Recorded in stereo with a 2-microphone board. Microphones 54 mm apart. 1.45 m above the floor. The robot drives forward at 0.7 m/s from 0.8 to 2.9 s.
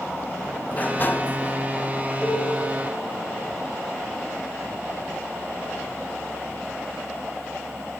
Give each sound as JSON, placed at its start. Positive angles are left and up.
{"t": 0.7, "sound": "a sliding door", "side_deg": 35, "distance_m": 0.8}
{"t": 2.2, "sound": "a cowbell", "side_deg": 20, "distance_m": 7.5}